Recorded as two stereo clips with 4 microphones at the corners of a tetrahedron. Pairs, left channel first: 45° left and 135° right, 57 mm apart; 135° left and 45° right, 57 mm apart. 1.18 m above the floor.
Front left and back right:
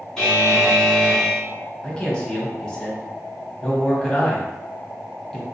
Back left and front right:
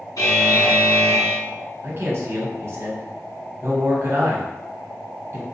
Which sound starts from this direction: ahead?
A man speaking, at 1.8 s.